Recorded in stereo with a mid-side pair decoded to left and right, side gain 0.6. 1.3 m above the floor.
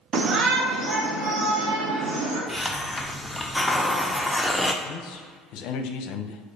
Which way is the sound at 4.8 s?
70° left.